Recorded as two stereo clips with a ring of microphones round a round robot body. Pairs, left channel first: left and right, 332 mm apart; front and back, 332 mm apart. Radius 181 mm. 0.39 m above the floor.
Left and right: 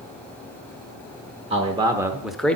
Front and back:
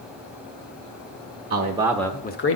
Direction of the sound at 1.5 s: 150° right.